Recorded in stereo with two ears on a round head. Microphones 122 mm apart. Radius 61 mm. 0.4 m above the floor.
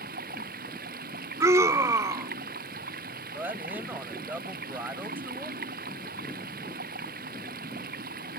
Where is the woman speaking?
15° right (ahead or behind).